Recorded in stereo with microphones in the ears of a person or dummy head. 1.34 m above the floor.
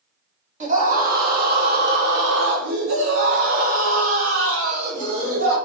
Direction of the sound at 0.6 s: 40° right (ahead or behind).